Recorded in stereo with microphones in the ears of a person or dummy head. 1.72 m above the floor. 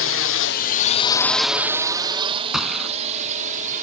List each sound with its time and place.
0.0 s a drone: 60° left (ahead or behind); by 3.8 s 35° right (ahead or behind)
2.5 s a gunshot: 5° right (ahead or behind)